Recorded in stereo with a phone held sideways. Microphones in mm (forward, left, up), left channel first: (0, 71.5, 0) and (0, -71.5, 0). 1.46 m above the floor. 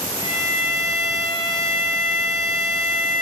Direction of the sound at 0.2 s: 40° left (ahead or behind).